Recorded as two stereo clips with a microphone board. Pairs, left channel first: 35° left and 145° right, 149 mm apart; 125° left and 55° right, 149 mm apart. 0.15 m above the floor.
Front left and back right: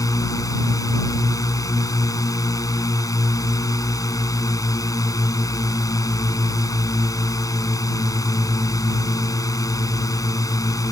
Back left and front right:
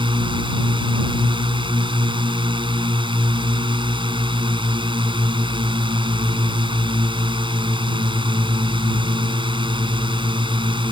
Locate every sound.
0.0 s a drone: 20° right